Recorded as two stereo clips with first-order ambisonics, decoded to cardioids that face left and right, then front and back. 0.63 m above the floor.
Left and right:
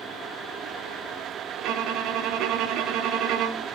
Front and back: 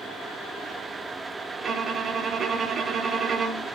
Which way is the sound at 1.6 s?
120° right.